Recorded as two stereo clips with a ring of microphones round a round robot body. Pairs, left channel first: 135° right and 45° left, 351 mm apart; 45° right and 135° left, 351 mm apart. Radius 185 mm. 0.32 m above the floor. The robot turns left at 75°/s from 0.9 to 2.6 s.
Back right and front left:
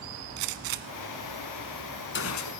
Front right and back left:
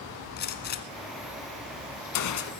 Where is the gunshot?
20° left, 1.0 m; by 2.5 s 105° right, 1.0 m.